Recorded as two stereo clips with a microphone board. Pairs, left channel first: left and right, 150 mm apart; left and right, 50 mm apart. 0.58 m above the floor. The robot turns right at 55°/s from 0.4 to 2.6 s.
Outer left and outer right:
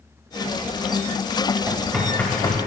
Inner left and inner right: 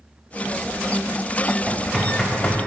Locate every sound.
1.7 s knocking: 15° right (ahead or behind), 2.5 m; by 2.6 s 35° left (ahead or behind), 2.5 m